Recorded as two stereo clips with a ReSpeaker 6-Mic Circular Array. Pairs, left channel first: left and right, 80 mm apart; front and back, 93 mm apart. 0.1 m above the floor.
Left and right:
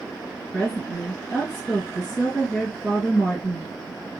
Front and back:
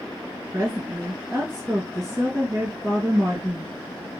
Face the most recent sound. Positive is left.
turn(degrees=175)